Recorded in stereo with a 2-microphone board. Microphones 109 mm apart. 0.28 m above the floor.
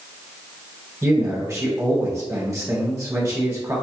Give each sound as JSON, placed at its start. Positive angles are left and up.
{"t": 1.0, "sound": "a man speaking", "side_deg": -25, "distance_m": 1.6}